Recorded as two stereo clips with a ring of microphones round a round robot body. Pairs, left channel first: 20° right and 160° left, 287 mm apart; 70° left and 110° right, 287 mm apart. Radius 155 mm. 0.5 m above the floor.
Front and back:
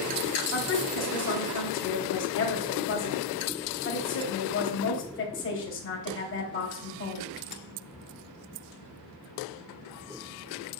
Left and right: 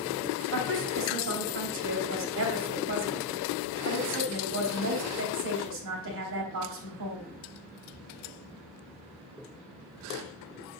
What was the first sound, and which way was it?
A woman speaking, 70° right.